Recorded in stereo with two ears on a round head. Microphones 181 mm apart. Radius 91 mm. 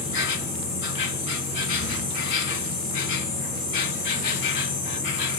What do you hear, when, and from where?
0.0 s an insect: 65° left (ahead or behind), 1.7 m